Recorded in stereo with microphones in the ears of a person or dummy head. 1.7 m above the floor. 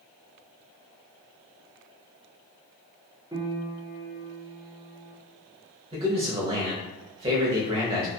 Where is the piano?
15° right (ahead or behind), 0.5 m.